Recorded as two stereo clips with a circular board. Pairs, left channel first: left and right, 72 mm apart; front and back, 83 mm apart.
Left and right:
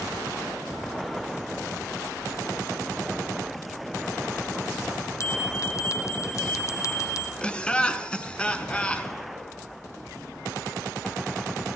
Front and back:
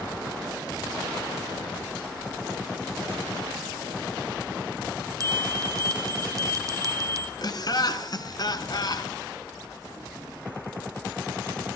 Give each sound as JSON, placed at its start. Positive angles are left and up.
{"t": 5.2, "sound": "a bell", "azimuth_deg": 135, "distance_m": 1.9}
{"t": 7.4, "sound": "laughter", "azimuth_deg": 15, "distance_m": 1.8}